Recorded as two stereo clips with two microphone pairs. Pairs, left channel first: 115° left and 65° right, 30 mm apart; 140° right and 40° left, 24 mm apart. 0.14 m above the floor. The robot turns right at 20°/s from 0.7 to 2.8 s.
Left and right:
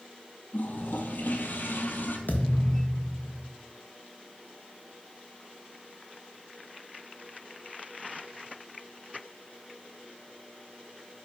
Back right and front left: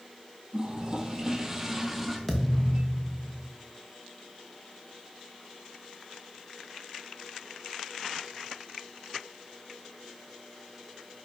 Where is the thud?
135° left, 1.4 m; by 3.5 s 145° left, 1.4 m.